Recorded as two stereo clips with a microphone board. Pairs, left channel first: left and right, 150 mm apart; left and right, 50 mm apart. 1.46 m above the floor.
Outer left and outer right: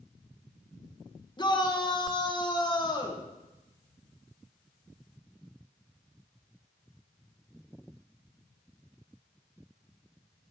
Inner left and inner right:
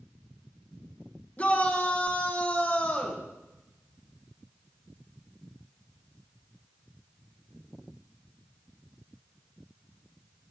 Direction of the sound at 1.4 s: 30° left (ahead or behind).